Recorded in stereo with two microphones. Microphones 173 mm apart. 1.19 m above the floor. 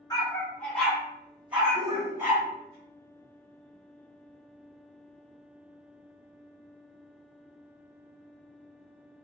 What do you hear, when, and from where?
0.1 s a dog barking: 20° left (ahead or behind), 1.0 m; by 2.8 s 20° right (ahead or behind), 2 m
1.8 s a shout: 20° right (ahead or behind), 0.5 m